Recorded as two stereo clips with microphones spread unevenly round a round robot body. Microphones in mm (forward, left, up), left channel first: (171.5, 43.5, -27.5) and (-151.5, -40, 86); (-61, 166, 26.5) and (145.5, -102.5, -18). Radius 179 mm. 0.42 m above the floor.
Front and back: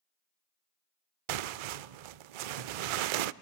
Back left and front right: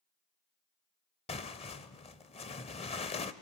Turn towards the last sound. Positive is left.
turn(degrees=-155)